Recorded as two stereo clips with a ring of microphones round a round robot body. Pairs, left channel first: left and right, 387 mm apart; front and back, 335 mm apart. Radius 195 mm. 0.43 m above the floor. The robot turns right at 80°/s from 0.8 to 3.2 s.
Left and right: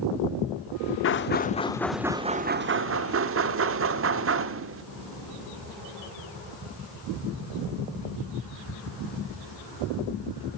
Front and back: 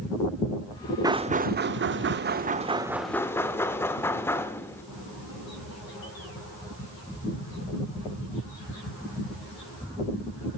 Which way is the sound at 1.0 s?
110° left.